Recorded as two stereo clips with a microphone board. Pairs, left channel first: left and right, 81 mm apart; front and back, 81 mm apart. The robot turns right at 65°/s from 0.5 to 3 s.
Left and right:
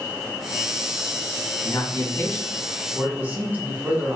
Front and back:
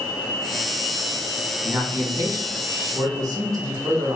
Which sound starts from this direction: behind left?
A man speaking, at 1.6 s.